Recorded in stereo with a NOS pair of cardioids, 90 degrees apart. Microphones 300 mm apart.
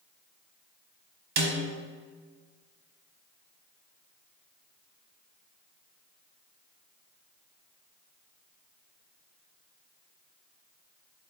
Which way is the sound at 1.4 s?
70° right.